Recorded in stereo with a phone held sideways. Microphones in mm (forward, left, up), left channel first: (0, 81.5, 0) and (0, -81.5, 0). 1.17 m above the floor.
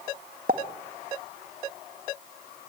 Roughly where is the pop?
Right.